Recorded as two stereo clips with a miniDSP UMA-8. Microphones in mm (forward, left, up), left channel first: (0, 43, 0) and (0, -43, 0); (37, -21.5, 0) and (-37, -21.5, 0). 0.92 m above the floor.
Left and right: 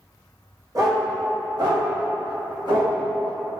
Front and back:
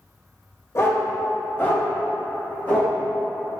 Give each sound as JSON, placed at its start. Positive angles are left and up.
{"t": 0.8, "sound": "a dog barking", "azimuth_deg": -50, "distance_m": 1.4}